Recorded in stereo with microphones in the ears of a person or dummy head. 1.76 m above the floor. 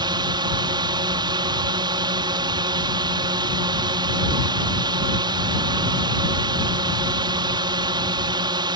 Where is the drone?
25° right (ahead or behind).